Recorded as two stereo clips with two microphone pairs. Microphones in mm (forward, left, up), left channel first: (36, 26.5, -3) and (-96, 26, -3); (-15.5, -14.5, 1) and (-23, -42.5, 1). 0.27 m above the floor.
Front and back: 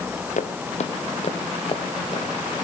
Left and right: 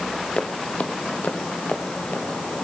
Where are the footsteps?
25° left, 1.9 m; by 2.3 s 50° left, 3 m.